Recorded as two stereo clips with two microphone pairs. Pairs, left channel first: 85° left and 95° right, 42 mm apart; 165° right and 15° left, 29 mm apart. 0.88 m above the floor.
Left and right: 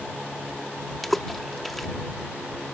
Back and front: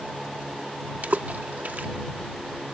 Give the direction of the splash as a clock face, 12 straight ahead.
12 o'clock.